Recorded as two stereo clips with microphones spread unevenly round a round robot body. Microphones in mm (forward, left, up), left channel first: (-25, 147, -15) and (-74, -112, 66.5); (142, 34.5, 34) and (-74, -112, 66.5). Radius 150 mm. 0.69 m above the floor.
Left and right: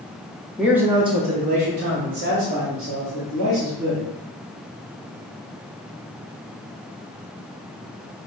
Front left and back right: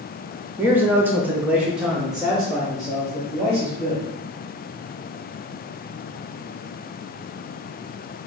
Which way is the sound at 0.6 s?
130° left.